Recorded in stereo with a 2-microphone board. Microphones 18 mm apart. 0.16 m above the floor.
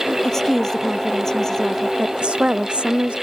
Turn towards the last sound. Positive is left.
turn(degrees=-65)  # may be behind; listen again after turning